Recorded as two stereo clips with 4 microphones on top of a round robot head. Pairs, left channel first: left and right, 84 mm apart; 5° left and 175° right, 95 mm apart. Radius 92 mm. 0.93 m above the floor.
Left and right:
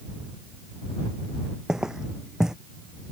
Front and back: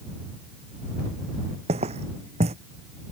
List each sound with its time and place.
1.7 s footsteps: 175° right